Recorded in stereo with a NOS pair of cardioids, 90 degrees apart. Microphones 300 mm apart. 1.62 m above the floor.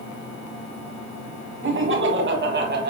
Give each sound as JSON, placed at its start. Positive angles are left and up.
{"t": 1.6, "sound": "laughter", "azimuth_deg": -40, "distance_m": 3.5}